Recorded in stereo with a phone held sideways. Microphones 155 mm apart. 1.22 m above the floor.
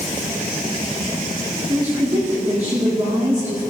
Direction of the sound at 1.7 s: 25° right (ahead or behind).